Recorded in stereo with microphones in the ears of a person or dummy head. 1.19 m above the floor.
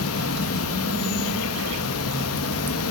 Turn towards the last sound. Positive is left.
turn(degrees=80)